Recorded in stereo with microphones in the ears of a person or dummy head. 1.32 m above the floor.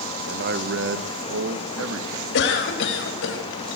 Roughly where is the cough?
Left.